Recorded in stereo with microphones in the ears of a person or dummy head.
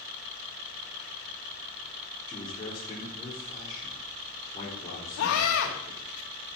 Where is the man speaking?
25° left (ahead or behind), 4.5 m.